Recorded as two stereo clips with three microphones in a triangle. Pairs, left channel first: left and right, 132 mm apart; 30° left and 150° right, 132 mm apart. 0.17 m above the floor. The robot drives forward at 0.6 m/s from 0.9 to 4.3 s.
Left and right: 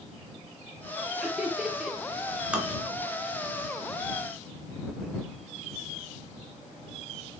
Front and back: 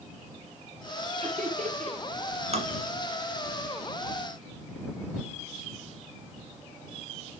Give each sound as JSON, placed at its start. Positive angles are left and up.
{"t": 1.2, "sound": "laughter", "azimuth_deg": -170, "distance_m": 3.0}
{"t": 2.5, "sound": "tapping", "azimuth_deg": -170, "distance_m": 1.7}